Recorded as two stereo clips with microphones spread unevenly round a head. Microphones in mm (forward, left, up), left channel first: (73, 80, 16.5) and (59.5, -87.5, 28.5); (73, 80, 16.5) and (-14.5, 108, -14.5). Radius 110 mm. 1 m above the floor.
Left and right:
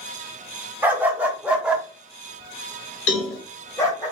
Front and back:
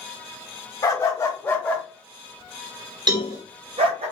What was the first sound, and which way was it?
A dog barking, 20° right.